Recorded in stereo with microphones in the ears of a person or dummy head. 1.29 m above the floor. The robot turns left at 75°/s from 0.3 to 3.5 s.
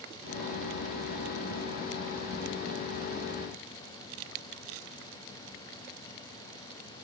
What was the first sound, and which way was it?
Only background noise.